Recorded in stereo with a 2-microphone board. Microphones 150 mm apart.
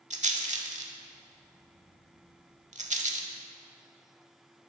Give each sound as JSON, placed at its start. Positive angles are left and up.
{"t": 0.1, "sound": "a rattle", "side_deg": -50, "distance_m": 0.7}